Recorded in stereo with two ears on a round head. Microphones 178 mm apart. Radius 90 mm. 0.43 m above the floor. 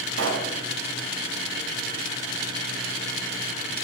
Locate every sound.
0.1 s a pop: 70° right (ahead or behind), 2.5 m